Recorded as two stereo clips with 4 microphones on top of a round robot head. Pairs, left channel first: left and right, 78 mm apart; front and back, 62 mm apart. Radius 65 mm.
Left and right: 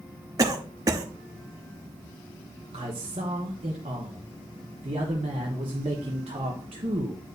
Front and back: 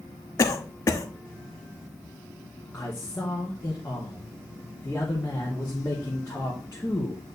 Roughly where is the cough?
Ahead right.